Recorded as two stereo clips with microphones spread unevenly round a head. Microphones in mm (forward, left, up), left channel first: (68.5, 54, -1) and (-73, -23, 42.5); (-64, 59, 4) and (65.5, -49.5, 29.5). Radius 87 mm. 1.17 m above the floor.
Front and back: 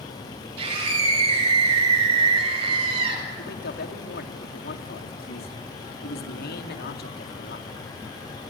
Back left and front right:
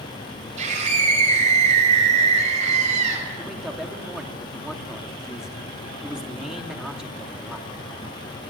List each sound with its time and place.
0.6 s a scream: 95° right, 7 m
3.4 s a man speaking: 50° left, 2.5 m